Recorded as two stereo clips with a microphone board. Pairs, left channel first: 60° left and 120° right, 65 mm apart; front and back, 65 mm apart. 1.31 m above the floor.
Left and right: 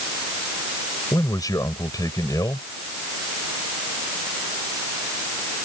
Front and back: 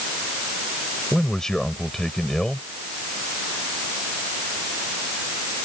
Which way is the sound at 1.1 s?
85° left.